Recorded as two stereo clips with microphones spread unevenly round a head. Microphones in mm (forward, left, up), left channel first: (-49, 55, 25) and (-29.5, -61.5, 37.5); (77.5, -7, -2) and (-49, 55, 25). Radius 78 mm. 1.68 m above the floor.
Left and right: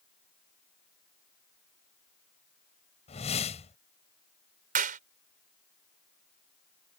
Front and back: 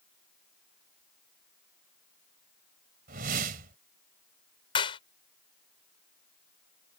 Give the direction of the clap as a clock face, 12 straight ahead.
3 o'clock.